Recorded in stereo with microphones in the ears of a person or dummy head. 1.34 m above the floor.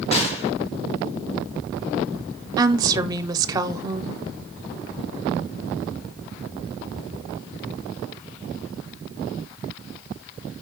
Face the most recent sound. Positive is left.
turn(degrees=-20)  # may be behind; listen again after turning